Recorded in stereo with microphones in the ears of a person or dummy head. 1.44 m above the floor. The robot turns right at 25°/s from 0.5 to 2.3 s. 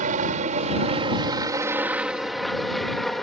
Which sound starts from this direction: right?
A helicopter, at 0.0 s.